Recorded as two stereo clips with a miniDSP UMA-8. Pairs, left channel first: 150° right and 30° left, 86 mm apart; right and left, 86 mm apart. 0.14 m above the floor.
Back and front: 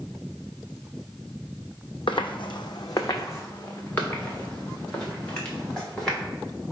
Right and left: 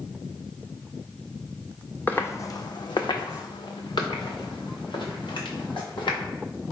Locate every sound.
2.1 s footsteps: 155° right, 0.5 m; by 6.3 s 70° right, 2 m